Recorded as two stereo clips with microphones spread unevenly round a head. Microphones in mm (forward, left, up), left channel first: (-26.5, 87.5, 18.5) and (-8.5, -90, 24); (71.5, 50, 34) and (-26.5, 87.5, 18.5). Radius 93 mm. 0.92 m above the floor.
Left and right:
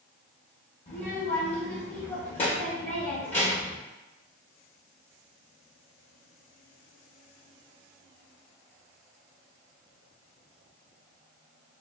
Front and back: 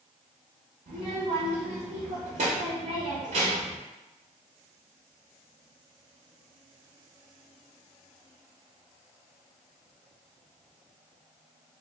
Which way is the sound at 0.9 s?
150° left.